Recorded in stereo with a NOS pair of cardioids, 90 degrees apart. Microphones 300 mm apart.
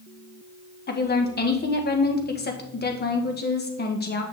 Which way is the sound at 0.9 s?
35° left.